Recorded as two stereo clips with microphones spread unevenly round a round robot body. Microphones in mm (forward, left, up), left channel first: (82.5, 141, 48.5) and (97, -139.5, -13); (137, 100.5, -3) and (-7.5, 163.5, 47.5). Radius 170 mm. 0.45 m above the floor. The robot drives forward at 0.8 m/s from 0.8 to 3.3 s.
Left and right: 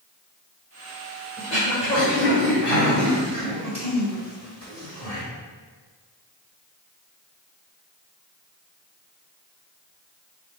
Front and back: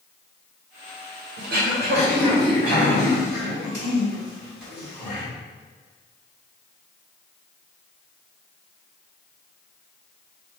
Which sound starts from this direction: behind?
Throat clearing, at 1.4 s.